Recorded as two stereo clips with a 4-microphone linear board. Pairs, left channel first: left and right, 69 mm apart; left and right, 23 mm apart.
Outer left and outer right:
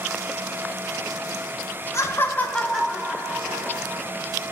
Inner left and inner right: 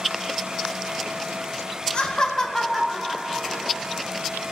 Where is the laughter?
40° left (ahead or behind), 1.1 m; by 4.0 s 20° right (ahead or behind), 2.5 m.